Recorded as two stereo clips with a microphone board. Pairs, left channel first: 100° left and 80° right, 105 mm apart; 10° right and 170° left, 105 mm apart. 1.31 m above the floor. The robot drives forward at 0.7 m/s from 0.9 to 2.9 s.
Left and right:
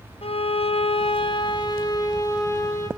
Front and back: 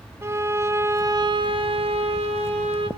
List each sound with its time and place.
0.2 s a violin: 110° left, 0.6 m; by 2.9 s 160° left, 1.7 m